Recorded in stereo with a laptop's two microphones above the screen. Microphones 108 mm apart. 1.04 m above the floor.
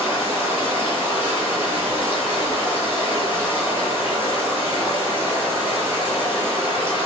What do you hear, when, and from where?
0.0 s running water: 15° right (ahead or behind), 1.7 m